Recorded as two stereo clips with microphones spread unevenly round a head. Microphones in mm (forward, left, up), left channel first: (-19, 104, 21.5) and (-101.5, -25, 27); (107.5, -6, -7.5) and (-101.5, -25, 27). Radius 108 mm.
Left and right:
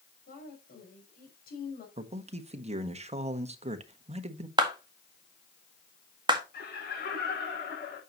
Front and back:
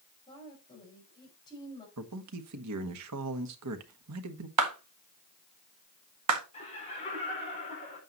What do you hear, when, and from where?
0.3 s a woman speaking: 75° left, 5.5 m
2.0 s a man speaking: 170° right, 1.4 m
4.6 s a clap: 175° left, 1.9 m
6.5 s laughter: 70° left, 6.5 m